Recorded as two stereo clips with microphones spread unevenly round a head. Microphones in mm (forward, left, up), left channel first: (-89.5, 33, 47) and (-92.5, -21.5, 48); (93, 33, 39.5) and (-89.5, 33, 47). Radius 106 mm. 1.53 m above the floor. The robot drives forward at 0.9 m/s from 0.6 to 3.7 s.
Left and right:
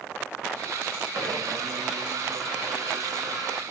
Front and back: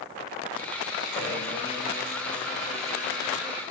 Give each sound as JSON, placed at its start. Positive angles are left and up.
{"t": 1.1, "sound": "a blender", "azimuth_deg": -75, "distance_m": 6.5}